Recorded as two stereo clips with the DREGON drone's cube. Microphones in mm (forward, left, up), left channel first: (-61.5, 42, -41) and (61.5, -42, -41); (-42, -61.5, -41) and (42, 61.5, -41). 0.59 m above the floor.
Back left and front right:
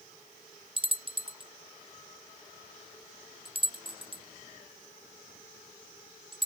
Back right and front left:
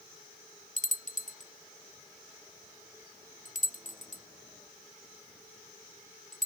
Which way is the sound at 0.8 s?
90° right.